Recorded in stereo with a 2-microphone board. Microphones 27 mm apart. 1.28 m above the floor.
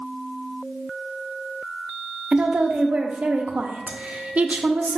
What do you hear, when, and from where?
2.3 s a woman speaking: 60° right (ahead or behind), 0.6 m